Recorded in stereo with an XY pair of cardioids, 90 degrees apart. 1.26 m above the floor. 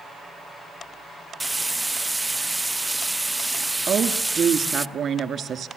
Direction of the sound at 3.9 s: 60° right.